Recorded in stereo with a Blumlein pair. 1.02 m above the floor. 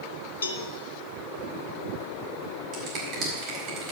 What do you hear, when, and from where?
0.4 s a cowbell: 70° left, 1.0 m
2.7 s a finger snap: 40° right, 4.5 m